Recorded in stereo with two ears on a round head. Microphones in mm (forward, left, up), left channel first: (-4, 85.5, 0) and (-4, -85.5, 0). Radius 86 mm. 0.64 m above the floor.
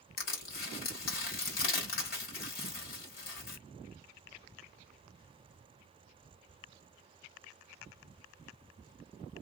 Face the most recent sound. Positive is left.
turn(degrees=55)  # may be behind; listen again after turning